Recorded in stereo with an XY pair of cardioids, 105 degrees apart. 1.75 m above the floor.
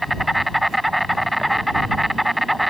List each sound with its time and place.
0.0 s an insect: straight ahead